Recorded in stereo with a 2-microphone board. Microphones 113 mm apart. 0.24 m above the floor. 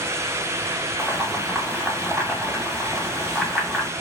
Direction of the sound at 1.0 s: 5° left (ahead or behind).